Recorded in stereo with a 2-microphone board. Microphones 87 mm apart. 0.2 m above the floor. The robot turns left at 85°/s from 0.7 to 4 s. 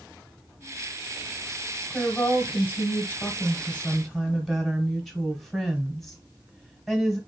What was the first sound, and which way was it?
A woman speaking, centre (ahead or behind).